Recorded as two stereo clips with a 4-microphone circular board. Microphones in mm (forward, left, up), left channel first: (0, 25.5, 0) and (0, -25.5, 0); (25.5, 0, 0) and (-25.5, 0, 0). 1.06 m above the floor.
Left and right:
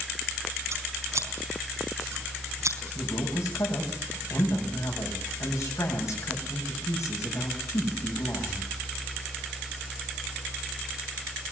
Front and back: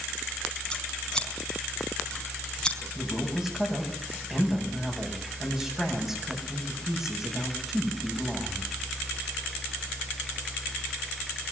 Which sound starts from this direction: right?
Scissors, at 0.7 s.